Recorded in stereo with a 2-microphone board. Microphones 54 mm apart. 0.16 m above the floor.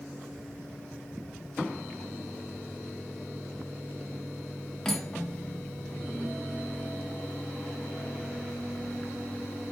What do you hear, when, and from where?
4.8 s cutlery clinking: 10° left (ahead or behind), 0.6 m